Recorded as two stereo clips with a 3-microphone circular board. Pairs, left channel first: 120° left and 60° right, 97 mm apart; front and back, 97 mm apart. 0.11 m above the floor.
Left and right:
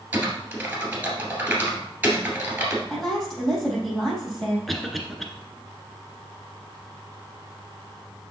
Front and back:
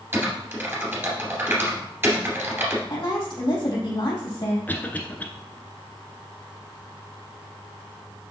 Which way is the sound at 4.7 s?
35° left.